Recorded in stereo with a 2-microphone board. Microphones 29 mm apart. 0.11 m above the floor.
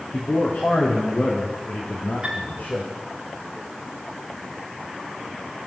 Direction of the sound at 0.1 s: 65° left (ahead or behind).